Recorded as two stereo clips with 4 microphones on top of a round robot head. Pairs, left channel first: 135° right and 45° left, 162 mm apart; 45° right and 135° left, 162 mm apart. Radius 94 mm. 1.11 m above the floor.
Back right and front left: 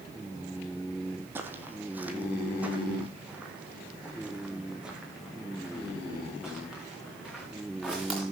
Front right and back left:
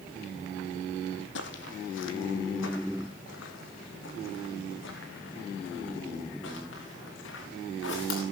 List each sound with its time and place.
1.4 s footsteps: 30° right, 2 m; by 8.2 s 40° right, 6 m